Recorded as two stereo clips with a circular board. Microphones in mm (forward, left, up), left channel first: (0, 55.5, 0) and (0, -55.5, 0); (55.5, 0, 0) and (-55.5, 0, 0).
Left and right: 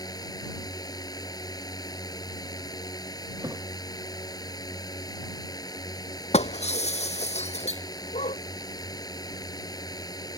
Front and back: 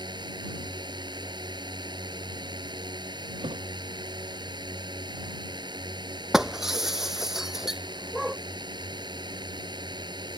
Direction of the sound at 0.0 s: 140° left.